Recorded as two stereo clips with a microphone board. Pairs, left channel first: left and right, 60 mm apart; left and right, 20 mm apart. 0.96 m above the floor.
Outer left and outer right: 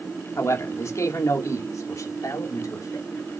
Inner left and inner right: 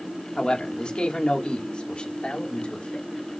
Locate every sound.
0.4 s a man speaking: 55° left (ahead or behind), 3 m; by 3.1 s 75° left (ahead or behind), 3.5 m